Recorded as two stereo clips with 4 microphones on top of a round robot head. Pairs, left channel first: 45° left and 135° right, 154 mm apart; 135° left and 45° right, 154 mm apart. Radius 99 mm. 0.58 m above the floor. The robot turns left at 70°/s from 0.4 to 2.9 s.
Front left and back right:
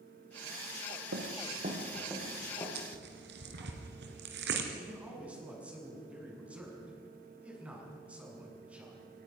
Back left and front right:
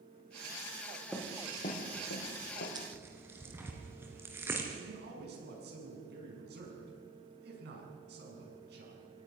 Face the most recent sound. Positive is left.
turn(degrees=-50)